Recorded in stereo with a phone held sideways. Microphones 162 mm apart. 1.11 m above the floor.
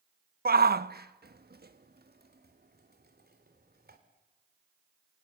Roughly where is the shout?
Right.